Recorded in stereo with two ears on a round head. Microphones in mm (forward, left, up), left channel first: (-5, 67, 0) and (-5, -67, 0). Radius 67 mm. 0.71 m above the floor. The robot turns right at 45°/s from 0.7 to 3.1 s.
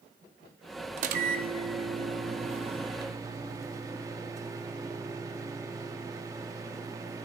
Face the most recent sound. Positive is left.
turn(degrees=-25)